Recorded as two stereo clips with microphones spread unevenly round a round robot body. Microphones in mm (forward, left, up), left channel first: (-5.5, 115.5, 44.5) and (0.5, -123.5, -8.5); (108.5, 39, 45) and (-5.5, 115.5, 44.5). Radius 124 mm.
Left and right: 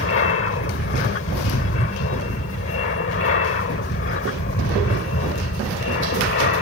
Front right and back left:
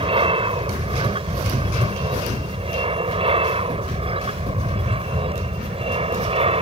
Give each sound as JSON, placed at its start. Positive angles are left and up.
{"t": 0.0, "sound": "an aircraft", "azimuth_deg": 120}